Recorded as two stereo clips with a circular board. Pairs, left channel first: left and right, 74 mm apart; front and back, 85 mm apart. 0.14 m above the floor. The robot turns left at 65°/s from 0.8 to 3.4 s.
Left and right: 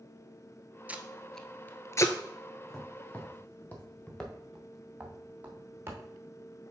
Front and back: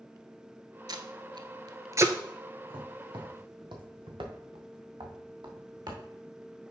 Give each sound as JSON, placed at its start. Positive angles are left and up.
{"t": 0.9, "sound": "tape being pulled", "azimuth_deg": -155, "distance_m": 0.7}
{"t": 2.7, "sound": "footsteps", "azimuth_deg": 180, "distance_m": 2.0}